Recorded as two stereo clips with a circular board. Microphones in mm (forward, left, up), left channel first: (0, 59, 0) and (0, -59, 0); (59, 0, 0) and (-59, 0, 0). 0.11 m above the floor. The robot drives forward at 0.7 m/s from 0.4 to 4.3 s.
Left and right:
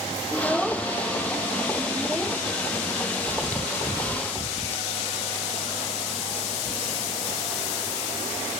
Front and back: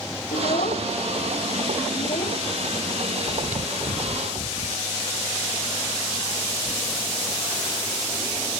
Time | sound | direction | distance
0.3 | a child speaking | straight ahead | ?
3.3 | chewing | 165° left | ?